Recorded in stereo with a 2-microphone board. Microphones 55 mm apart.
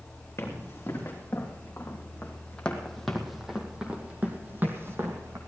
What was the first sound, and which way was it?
Running footsteps, 45° left (ahead or behind).